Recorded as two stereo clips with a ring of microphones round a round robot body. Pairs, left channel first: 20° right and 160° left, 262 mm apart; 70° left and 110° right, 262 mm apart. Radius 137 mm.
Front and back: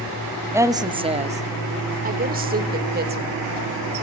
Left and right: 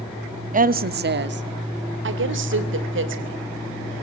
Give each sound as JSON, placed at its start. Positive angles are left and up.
{"t": 0.5, "sound": "a woman speaking", "azimuth_deg": -130, "distance_m": 1.1}